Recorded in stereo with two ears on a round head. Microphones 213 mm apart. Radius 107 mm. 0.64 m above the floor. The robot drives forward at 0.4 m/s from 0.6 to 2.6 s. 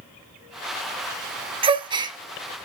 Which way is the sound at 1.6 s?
25° right (ahead or behind).